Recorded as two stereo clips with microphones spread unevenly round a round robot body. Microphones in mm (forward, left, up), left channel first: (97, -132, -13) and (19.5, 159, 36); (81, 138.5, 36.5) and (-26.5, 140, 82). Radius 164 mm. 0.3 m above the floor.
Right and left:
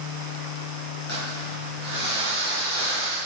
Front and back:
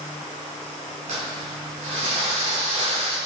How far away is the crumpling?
About 5 m.